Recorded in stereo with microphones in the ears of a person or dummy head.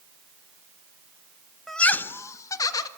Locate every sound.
1.7 s laughter: 5° right (ahead or behind), 0.7 m; by 2.9 s 20° left (ahead or behind), 1.8 m